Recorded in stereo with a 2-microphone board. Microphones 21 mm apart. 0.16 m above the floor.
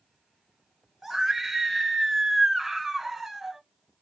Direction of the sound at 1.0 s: 10° right (ahead or behind).